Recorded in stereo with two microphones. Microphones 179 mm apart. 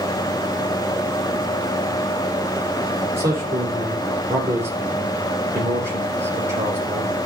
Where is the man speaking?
15° right (ahead or behind), 6 m.